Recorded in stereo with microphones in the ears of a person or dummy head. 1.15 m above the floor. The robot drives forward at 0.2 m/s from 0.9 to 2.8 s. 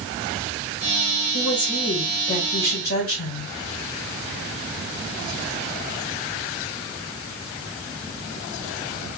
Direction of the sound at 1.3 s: 60° left (ahead or behind).